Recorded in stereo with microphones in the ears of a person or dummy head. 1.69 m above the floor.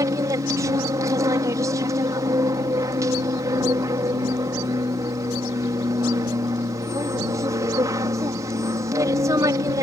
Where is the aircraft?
25° right (ahead or behind).